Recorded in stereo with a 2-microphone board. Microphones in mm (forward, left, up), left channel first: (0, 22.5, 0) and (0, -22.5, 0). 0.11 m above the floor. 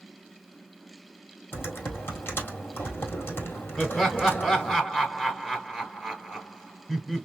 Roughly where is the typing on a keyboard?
Left.